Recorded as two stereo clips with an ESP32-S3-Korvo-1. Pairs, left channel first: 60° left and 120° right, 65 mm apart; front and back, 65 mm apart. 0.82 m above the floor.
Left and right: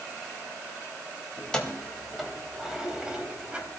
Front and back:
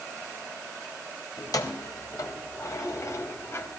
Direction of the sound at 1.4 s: 15° right.